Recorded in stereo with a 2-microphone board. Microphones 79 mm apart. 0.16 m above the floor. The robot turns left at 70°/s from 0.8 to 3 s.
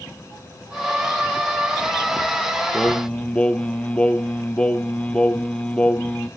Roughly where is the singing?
Centre.